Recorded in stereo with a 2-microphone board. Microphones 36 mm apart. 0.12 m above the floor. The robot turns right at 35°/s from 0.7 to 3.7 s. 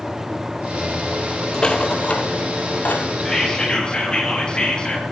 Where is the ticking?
I don't hear ticking.